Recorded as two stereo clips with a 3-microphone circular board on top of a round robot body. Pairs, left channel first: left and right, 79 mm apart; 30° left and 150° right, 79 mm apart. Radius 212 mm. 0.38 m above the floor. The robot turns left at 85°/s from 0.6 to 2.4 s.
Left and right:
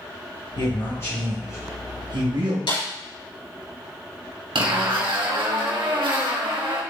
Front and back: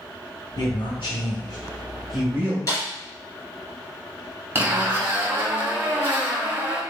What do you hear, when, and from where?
0.6 s a man speaking: 70° left, 2.5 m; by 2.6 s 85° right, 2.5 m
2.7 s a snare drum: 80° left, 4 m
4.5 s a zipper: 85° right, 3 m